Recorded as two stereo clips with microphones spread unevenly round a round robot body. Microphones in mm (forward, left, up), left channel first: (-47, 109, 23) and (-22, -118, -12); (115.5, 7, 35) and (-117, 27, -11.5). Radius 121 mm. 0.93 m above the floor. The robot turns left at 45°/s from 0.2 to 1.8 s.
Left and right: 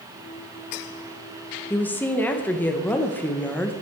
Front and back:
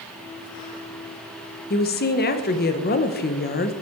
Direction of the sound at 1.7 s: 10° left.